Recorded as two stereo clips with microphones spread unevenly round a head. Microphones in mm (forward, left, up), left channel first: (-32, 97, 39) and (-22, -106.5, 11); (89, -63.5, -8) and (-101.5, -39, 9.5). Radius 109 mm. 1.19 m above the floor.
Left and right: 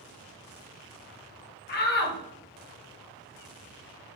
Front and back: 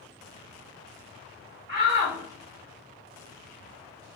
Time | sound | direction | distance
1.7 | a shout | 135° left | 0.7 m